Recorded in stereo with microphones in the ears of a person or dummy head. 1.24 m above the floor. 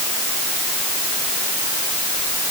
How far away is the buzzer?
No buzzer in this recording.